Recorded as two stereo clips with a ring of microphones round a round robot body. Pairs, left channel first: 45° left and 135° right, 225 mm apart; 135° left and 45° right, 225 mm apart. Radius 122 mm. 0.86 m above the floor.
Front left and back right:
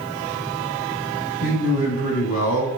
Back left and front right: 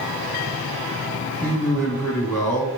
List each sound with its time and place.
1.4 s a man speaking: 55° left, 1.7 m